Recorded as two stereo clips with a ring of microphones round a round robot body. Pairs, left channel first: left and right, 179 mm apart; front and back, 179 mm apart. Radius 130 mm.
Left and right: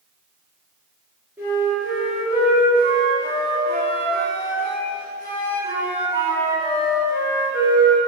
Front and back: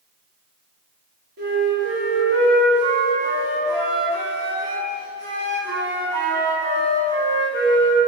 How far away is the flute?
About 1.9 m.